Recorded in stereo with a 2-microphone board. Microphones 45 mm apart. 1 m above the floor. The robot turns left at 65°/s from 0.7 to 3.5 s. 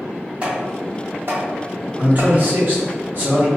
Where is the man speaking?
40° right, 0.9 m; by 3.5 s 135° right, 0.9 m.